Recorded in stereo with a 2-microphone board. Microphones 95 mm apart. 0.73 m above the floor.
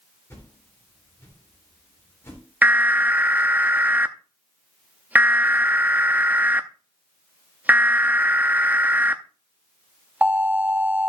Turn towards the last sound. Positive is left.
turn(degrees=-15)  # may be behind; listen again after turning